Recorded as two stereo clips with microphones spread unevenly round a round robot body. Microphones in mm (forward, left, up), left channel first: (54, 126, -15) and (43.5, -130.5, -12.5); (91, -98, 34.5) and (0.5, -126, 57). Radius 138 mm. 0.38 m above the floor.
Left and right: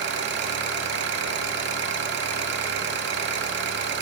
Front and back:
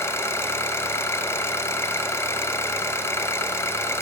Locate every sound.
0.0 s an engine running: 45° right, 0.8 m